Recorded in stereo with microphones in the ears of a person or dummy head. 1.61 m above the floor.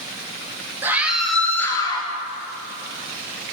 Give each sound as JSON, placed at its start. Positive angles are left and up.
{"t": 0.8, "sound": "a scream", "side_deg": -10, "distance_m": 3.0}